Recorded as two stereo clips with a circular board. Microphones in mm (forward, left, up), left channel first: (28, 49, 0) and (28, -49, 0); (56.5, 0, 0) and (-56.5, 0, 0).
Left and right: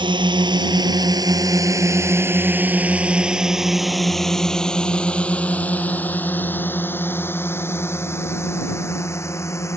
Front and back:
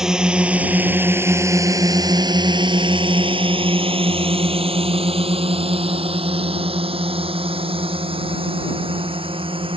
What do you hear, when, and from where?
0.0 s a drone: 95° right; by 9.8 s 150° left